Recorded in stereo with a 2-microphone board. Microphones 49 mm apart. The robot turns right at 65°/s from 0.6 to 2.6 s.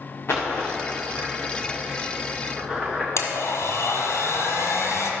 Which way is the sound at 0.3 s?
50° left (ahead or behind).